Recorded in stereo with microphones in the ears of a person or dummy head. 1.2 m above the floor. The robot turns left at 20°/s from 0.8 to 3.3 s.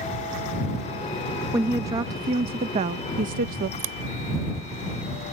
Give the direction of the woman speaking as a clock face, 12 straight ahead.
12 o'clock.